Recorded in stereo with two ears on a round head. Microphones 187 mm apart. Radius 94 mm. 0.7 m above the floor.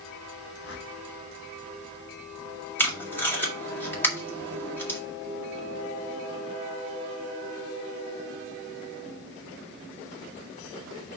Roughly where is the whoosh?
Left.